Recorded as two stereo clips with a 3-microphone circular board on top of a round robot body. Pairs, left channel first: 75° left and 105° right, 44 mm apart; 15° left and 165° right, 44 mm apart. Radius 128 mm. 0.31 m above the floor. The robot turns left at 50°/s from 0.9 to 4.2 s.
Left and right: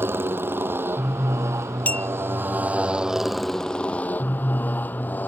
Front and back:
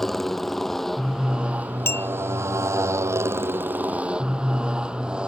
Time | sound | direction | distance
0.0 | a motorcycle | 70° right | ?
1.9 | a clink | 25° left | ?